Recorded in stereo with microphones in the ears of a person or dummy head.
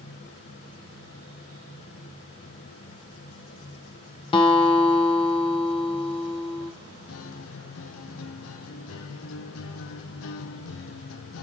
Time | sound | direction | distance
4.3 | a guitar | 25° left (ahead or behind) | 0.8 m
7.1 | a guitar | 70° left (ahead or behind) | 0.6 m